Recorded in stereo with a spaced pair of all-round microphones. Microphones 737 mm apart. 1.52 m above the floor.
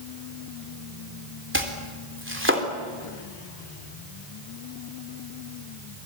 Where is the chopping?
15° right (ahead or behind), 3.5 m.